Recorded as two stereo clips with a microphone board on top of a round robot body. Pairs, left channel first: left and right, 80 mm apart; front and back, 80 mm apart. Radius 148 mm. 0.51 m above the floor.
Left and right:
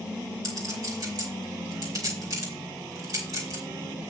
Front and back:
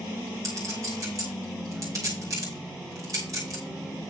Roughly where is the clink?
Behind right.